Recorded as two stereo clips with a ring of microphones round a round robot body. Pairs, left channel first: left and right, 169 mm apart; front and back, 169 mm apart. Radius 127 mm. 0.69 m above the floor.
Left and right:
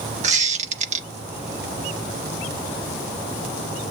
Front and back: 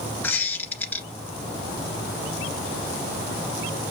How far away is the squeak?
About 0.5 m.